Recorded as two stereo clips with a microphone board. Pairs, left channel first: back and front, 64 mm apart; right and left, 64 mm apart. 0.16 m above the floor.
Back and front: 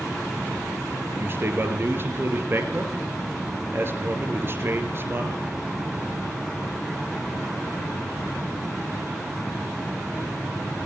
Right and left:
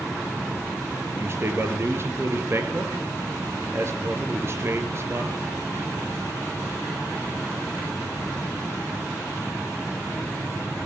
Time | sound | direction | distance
1.1 | a man speaking | 45° left | 3.5 m